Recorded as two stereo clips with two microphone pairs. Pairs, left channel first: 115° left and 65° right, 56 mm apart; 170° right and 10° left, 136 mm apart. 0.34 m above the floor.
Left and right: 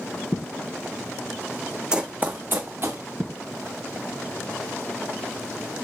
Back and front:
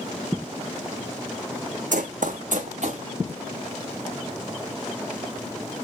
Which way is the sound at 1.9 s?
10° left.